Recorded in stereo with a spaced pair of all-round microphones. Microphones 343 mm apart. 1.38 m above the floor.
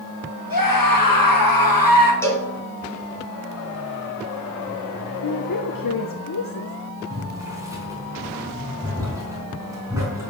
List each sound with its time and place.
0.5 s a scream: 75° left (ahead or behind), 1.6 m
2.2 s a cowbell: 5° left (ahead or behind), 2 m
5.2 s a woman speaking: 70° left (ahead or behind), 0.8 m
7.1 s boiling: 10° right (ahead or behind), 4 m